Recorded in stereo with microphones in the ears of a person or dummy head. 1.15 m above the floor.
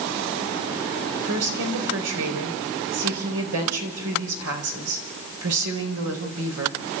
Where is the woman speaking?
80° right, 5 m.